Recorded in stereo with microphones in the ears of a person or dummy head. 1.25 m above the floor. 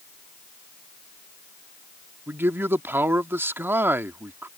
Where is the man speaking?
5° right (ahead or behind).